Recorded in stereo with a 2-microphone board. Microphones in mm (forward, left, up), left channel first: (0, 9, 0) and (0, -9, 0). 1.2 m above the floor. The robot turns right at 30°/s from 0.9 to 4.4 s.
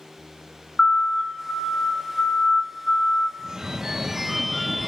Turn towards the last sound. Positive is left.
turn(degrees=-10)